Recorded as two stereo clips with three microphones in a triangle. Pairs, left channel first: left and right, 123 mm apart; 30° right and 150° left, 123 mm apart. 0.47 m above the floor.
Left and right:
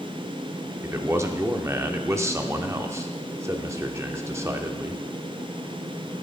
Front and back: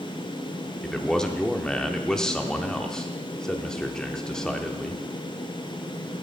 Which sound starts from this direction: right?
A man speaking, at 0.8 s.